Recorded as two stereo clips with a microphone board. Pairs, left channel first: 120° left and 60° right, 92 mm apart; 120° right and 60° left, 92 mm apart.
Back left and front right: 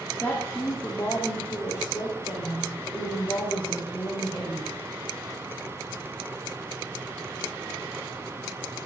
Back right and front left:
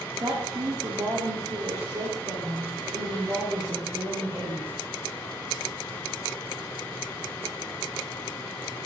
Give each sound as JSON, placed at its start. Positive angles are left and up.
{"t": 0.2, "sound": "a woman speaking", "azimuth_deg": 60, "distance_m": 1.4}